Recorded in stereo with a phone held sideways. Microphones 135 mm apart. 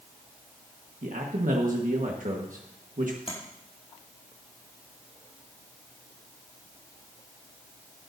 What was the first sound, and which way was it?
A man speaking, 75° right (ahead or behind).